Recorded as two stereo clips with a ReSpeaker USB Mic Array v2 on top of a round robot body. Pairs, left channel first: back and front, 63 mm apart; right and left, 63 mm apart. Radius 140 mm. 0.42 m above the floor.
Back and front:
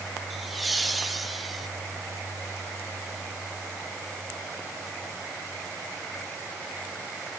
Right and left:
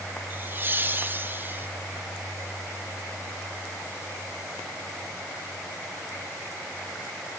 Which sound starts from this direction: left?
Laughter, at 0.3 s.